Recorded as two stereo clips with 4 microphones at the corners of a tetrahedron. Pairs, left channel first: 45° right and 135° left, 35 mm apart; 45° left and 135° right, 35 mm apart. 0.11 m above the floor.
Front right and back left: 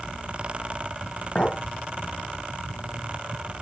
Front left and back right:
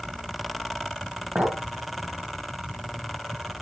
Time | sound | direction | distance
1.4 | a clink | 100° right | 2 m